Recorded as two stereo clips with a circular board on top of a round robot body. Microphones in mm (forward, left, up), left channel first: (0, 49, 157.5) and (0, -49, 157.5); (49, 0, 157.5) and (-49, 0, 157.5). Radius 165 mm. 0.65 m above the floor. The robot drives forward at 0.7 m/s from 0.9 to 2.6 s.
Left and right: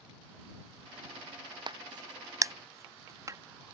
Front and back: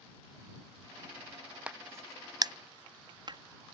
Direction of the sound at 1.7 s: 105° right.